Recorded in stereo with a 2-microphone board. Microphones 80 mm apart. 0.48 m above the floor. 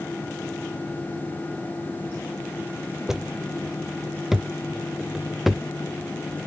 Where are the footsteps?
5° right (ahead or behind); by 6.5 s centre (ahead or behind).